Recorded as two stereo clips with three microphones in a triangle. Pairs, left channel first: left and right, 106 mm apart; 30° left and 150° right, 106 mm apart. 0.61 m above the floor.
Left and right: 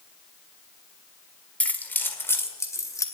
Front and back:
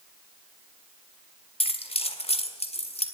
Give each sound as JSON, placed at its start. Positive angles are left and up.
{"t": 1.6, "sound": "keys jangling", "azimuth_deg": 15, "distance_m": 1.5}